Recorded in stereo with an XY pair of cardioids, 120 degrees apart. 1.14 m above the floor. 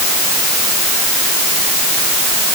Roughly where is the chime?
I don't hear a chime.